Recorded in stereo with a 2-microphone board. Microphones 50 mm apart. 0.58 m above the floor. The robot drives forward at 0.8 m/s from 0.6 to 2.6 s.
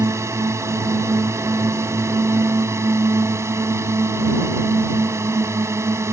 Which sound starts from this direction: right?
A drone, at 0.0 s.